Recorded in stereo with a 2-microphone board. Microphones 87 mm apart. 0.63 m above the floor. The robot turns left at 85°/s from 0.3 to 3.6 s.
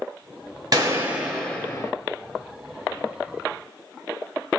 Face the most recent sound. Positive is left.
turn(degrees=-10)